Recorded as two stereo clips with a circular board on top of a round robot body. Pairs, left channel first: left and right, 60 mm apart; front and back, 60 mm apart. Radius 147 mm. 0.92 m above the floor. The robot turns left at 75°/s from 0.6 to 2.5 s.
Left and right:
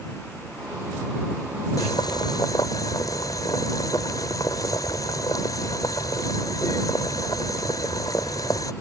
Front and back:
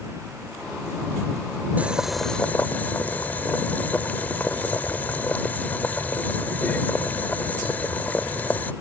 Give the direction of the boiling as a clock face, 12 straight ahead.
8 o'clock.